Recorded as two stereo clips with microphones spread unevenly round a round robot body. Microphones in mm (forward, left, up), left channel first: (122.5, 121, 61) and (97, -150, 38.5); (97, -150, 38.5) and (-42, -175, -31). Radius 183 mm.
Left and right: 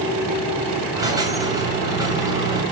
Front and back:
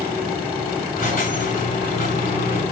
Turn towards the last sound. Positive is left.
turn(degrees=-15)